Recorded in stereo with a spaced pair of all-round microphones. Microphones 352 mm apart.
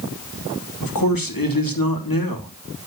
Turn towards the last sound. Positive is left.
turn(degrees=70)  # may be behind; listen again after turning